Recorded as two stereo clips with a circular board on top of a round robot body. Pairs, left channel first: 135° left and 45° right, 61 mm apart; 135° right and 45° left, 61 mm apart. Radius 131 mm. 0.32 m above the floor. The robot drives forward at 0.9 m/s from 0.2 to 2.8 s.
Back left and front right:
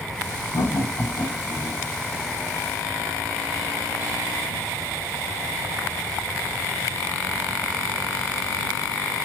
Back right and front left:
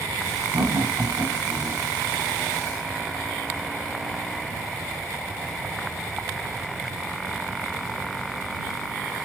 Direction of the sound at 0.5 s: 95° left.